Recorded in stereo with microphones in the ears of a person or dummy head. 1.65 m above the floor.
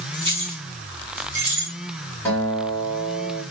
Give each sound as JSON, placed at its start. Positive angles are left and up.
{"t": 0.1, "sound": "keys jangling", "side_deg": -30, "distance_m": 2.0}
{"t": 2.2, "sound": "a guitar", "side_deg": 10, "distance_m": 2.0}